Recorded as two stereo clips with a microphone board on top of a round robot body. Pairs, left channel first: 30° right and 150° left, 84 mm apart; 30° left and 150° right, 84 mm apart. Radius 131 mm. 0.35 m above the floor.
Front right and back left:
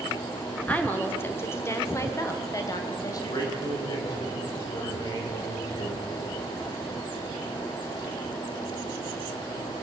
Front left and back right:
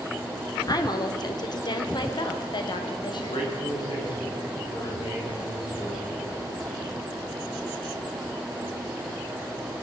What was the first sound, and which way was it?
A woman speaking, 35° left.